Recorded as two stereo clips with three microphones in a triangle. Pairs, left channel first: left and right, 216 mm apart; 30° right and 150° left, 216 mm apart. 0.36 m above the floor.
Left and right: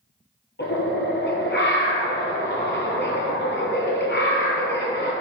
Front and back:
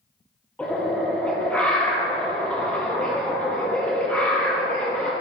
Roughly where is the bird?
Ahead left.